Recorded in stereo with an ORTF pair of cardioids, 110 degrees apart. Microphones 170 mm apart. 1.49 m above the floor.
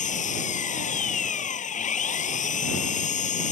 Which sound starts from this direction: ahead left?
An engine running, at 0.0 s.